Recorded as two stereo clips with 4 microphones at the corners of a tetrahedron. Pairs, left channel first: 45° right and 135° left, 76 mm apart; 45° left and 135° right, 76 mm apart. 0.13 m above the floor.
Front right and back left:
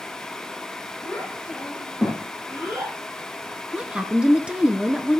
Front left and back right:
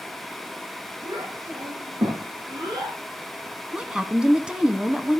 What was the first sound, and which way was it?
A child speaking, 130° right.